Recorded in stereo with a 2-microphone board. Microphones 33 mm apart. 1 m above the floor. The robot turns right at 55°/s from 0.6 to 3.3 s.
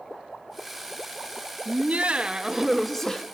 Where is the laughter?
60° right, 1.3 m; by 3.2 s 25° left, 1.3 m.